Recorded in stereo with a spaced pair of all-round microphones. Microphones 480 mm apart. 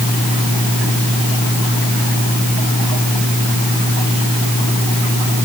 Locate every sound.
Only background noise.